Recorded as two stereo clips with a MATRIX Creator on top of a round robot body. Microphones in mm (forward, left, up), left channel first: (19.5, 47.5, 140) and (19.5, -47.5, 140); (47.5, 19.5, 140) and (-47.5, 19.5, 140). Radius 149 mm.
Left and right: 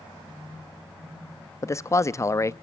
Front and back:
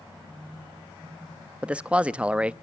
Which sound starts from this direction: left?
A man speaking, at 1.6 s.